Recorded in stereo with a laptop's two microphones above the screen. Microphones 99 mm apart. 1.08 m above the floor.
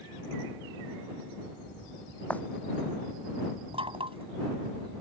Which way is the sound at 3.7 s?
75° right (ahead or behind).